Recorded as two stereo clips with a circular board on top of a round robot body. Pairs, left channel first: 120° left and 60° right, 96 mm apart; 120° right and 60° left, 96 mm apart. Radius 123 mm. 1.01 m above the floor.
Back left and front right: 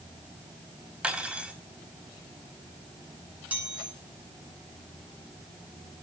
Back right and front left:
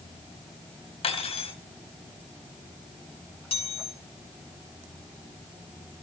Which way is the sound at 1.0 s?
140° right.